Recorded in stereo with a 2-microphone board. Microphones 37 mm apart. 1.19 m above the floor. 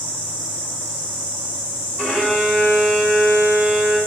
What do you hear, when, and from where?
2.0 s a violin: 5° right (ahead or behind), 1.9 m